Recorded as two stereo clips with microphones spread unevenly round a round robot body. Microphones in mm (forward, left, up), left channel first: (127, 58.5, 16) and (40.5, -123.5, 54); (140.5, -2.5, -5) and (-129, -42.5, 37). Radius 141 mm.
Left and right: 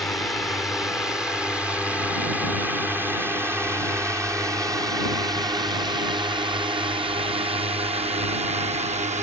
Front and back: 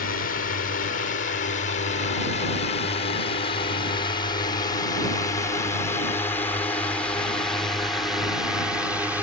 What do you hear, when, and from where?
0.0 s a drone: 10° right; by 9.2 s 80° right